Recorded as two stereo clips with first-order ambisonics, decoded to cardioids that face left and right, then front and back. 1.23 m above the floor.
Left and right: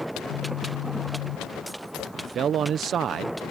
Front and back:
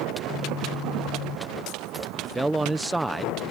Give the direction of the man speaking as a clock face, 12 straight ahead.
3 o'clock.